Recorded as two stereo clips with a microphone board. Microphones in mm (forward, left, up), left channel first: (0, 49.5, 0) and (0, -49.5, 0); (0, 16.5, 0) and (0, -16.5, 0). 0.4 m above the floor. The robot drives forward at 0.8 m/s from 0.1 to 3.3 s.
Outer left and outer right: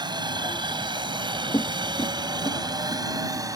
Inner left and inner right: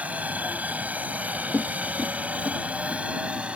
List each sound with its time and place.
0.0 s a helicopter: 50° right (ahead or behind); by 3.6 s 40° right (ahead or behind)
1.5 s footsteps: 30° left (ahead or behind); by 3.5 s 35° left (ahead or behind)